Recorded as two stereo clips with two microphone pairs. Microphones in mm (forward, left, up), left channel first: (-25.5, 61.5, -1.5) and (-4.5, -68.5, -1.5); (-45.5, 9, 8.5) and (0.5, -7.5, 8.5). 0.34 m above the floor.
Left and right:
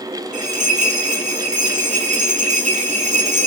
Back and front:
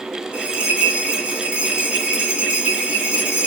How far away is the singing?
No singing in this recording.